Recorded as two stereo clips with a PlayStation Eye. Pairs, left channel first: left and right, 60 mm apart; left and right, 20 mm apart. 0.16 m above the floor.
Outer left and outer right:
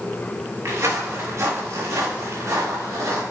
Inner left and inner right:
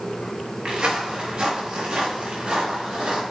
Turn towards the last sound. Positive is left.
turn(degrees=-60)  # may be behind; listen again after turning